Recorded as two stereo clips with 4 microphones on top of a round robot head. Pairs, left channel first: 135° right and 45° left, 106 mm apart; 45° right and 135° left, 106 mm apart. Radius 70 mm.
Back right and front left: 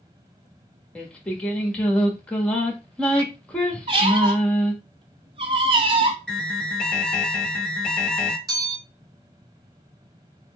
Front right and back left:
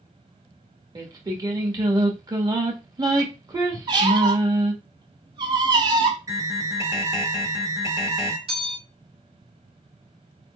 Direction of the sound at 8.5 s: 100° left.